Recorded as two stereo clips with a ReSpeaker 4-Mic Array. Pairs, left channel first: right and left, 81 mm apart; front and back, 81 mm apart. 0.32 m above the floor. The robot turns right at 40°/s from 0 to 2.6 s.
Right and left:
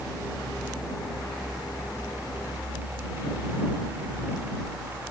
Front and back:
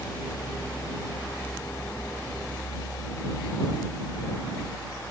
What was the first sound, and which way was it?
Only background noise.